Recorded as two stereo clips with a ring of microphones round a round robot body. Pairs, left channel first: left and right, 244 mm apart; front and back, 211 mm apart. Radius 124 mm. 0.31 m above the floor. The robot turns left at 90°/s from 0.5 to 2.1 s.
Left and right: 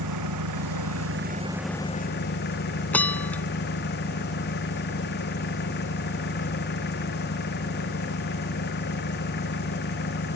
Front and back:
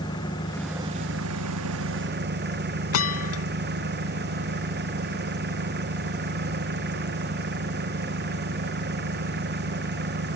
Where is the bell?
5° left.